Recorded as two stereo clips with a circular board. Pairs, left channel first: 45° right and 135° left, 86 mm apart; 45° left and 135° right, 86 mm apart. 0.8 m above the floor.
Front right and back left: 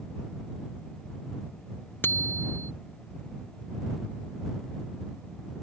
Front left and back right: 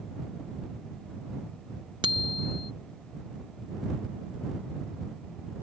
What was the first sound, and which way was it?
A bicycle bell, 110° right.